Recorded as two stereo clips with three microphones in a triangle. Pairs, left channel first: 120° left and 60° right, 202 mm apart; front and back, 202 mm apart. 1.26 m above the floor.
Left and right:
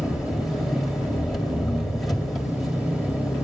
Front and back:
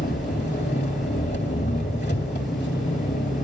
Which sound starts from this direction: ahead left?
An engine running, at 0.0 s.